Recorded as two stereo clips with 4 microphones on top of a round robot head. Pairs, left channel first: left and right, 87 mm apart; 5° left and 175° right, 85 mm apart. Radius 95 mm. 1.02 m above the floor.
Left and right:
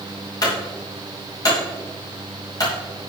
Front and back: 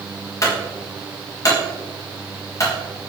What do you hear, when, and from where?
0.4 s a clunk: 50° left, 5 m